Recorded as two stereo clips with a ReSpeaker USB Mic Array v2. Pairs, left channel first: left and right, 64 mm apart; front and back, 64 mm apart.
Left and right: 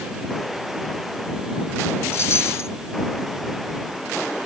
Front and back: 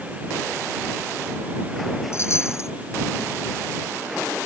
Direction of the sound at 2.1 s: 45° left.